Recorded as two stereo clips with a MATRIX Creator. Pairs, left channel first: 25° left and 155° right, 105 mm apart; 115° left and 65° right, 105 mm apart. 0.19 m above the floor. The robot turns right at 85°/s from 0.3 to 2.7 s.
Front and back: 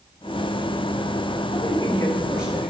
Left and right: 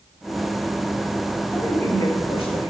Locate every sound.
1.5 s a woman speaking: 45° left, 2.5 m; by 2.7 s 145° left, 2.5 m